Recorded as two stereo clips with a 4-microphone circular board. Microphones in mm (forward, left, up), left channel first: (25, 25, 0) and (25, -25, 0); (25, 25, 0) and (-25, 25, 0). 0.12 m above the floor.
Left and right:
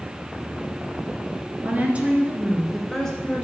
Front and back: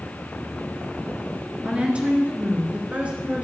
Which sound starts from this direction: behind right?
A woman speaking, at 1.6 s.